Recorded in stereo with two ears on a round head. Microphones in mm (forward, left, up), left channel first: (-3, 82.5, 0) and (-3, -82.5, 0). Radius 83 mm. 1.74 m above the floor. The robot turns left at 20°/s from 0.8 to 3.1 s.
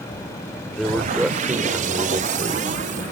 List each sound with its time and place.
0.7 s a man speaking: 5° left; by 3.0 s 40° right